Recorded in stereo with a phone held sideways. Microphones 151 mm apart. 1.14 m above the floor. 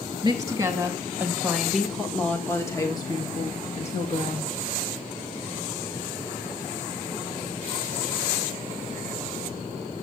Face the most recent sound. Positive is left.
turn(degrees=55)  # may be behind; listen again after turning